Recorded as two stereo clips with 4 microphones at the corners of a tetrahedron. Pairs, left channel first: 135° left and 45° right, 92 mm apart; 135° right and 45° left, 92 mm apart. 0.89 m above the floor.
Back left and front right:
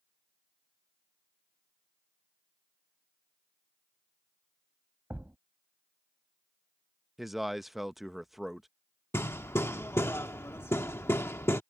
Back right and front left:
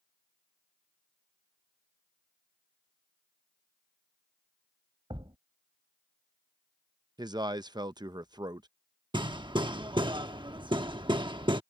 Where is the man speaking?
40° left.